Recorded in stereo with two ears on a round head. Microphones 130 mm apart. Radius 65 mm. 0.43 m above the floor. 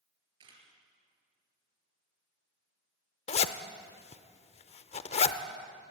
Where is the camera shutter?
35° right (ahead or behind), 4.5 m.